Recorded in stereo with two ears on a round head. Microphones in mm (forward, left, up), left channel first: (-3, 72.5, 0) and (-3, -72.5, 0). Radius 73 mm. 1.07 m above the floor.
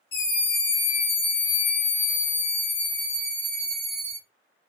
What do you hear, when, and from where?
0.1 s a scream: 70° left (ahead or behind), 2 m; by 4.2 s 5° right (ahead or behind), 1.9 m